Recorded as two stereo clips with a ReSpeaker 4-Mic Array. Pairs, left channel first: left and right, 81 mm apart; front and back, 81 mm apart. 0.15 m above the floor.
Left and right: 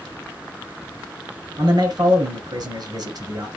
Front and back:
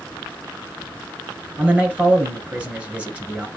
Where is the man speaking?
105° right, 2.5 m.